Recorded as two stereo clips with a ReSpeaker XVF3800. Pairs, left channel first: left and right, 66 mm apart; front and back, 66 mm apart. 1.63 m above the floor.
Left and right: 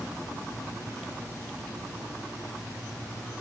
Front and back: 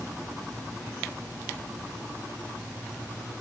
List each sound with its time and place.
Only background noise.